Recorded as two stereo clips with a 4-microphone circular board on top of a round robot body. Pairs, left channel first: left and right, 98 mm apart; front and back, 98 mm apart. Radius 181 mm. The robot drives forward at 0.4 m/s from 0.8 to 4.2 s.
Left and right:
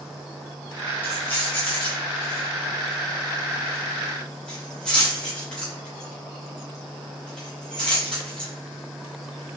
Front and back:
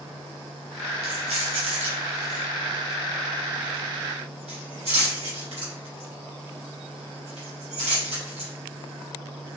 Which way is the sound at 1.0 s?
160° left.